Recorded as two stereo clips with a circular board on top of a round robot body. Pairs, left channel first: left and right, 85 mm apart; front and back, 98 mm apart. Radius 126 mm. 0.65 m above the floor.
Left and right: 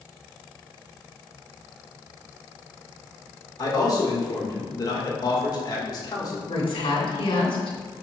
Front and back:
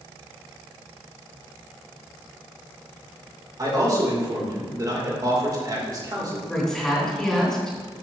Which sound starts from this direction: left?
A woman speaking, at 6.5 s.